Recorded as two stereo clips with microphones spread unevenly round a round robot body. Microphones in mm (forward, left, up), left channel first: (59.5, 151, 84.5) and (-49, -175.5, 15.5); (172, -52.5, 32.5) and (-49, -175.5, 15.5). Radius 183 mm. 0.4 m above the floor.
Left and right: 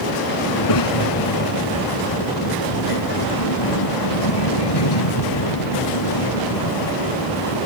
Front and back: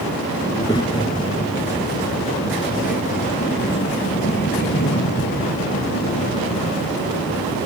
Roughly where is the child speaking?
Left.